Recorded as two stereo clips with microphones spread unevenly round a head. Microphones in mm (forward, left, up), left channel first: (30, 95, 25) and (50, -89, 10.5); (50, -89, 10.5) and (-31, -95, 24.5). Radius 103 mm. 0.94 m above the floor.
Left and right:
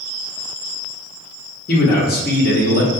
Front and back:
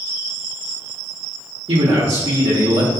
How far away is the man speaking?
About 1.0 m.